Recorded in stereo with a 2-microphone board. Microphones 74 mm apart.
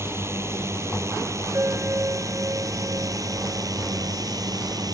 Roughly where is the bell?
Right.